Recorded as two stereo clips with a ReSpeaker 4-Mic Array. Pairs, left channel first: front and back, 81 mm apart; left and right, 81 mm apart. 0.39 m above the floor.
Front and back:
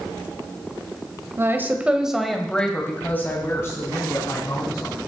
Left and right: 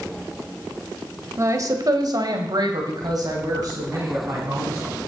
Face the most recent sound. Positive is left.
turn(degrees=-45)